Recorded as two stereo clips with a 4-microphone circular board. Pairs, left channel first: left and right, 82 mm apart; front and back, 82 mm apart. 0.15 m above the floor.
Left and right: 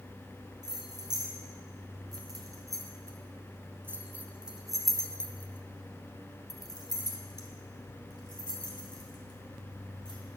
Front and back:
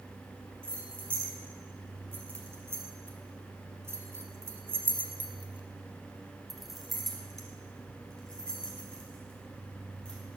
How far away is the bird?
I don't hear a bird.